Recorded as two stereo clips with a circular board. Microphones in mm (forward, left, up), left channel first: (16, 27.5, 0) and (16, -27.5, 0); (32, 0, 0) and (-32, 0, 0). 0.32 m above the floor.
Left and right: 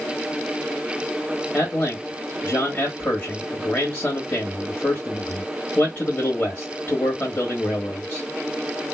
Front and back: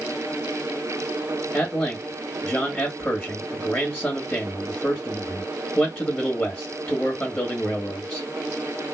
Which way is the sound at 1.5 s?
55° left.